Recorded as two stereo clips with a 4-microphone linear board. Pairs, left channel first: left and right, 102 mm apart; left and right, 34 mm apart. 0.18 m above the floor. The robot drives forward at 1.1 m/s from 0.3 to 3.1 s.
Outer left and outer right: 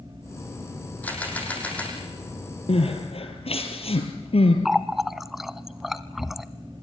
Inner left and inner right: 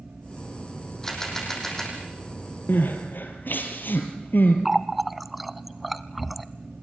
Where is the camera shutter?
15° left (ahead or behind), 6.5 m.